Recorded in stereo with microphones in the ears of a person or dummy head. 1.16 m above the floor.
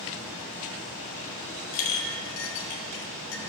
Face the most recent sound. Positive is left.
turn(degrees=70)  # may be behind; listen again after turning